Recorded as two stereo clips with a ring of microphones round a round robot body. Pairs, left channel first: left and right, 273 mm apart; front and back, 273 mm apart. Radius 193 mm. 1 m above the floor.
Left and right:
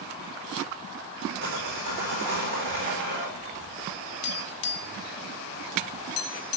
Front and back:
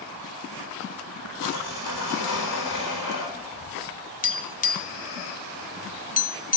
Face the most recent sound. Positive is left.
turn(degrees=55)